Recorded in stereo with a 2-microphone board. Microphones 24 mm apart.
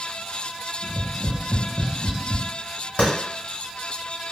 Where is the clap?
75° left (ahead or behind), 1.5 m.